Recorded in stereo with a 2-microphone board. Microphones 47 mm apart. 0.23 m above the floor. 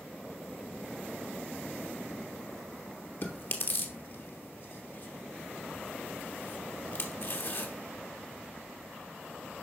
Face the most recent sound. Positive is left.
turn(degrees=50)  # may be behind; listen again after turning